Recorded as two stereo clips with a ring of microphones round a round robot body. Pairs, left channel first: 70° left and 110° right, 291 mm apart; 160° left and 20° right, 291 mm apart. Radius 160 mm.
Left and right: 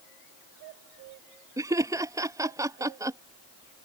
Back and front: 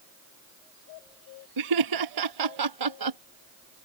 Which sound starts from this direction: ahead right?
Laughter, at 1.6 s.